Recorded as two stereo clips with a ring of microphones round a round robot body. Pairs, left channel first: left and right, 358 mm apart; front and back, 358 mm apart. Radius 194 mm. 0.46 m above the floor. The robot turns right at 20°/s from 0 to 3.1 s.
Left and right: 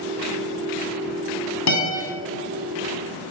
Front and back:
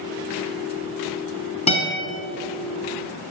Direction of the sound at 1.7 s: 70° left.